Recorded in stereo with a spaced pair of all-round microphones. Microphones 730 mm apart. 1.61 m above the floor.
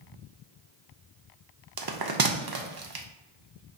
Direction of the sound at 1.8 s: 35° right (ahead or behind).